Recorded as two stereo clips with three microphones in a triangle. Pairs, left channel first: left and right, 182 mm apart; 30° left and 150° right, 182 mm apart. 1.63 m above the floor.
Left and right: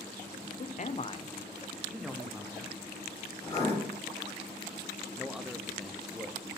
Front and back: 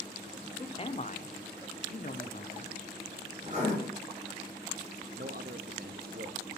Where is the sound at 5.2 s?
Straight behind, 0.8 m.